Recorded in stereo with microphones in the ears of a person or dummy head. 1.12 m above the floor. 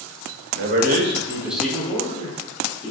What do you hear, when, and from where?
0.5 s a man speaking: 60° right (ahead or behind), 0.6 m; by 2.9 s 35° left (ahead or behind), 1.1 m